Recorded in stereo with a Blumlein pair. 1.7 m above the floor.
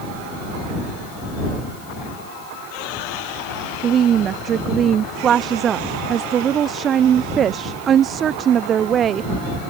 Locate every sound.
3.8 s a woman speaking: 25° right